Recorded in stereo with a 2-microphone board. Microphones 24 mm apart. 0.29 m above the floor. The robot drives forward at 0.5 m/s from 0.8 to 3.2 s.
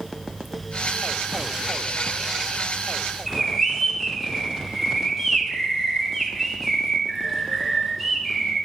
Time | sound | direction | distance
3.3 | a bird | 10° right (ahead or behind) | 3 m